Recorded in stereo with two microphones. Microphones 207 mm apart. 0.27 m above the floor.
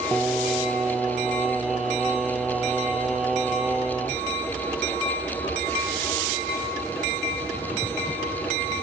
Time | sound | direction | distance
0.1 | singing | 5° right (ahead or behind) | 0.5 m